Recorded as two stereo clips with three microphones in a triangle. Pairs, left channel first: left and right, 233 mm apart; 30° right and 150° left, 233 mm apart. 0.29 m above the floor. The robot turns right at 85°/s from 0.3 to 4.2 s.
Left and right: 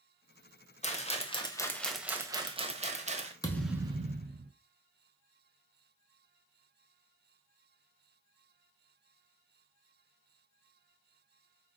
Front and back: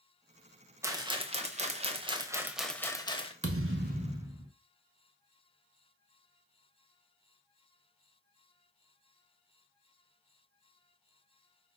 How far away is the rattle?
About 0.8 m.